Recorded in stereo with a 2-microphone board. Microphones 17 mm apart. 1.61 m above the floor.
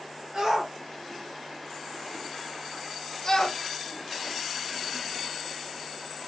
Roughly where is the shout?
Right.